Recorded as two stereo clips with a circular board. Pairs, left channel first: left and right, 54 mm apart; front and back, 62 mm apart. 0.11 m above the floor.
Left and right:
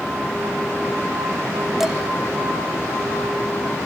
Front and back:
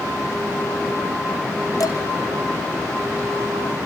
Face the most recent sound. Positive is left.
turn(degrees=-5)